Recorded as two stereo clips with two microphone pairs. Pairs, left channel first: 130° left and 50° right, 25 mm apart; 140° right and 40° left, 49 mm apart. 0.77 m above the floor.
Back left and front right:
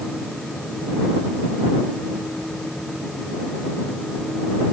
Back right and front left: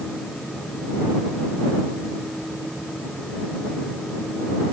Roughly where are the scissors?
No scissors in this recording.